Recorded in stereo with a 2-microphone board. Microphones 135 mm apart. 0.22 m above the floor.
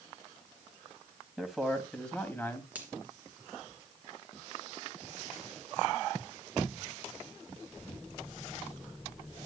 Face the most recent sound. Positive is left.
turn(degrees=-10)  # may be behind; listen again after turning